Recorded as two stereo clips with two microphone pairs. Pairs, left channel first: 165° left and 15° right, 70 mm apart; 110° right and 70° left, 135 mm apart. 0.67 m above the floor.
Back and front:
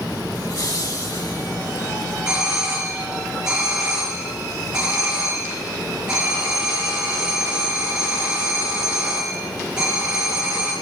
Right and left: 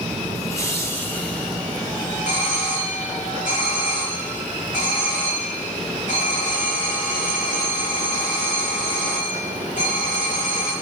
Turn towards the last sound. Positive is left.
turn(degrees=-90)